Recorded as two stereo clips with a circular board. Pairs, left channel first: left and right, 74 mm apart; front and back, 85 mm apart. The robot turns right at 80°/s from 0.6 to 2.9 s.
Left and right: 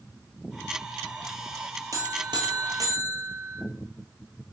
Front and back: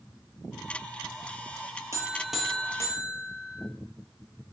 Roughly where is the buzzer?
Behind right.